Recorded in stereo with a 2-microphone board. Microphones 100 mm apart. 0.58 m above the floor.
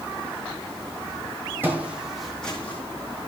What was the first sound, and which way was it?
Footsteps, 20° right (ahead or behind).